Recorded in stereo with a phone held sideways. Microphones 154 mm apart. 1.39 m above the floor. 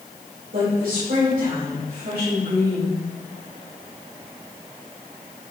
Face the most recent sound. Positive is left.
turn(degrees=-70)  # may be behind; listen again after turning